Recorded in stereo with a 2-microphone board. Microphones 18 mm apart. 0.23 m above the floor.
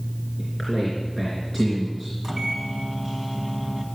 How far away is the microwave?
About 1.9 m.